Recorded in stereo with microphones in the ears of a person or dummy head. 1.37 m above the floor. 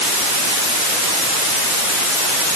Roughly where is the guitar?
I don't hear a guitar.